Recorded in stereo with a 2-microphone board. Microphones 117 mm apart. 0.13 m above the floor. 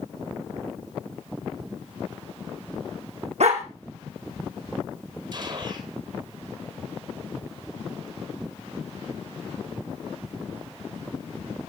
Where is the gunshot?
40° right (ahead or behind), 2 m.